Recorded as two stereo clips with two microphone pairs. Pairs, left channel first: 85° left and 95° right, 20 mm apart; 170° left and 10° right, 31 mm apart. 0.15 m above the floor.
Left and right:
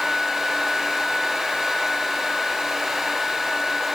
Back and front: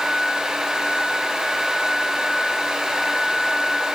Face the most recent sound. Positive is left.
No sound to turn to.